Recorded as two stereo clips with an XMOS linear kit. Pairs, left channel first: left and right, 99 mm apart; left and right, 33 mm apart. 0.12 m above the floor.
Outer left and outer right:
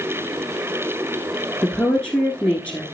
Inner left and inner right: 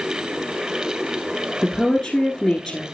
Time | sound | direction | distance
1.6 | a woman speaking | 10° left (ahead or behind) | 1.3 m